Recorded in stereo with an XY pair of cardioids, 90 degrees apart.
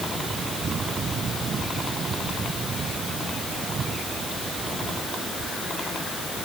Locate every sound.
Only background noise.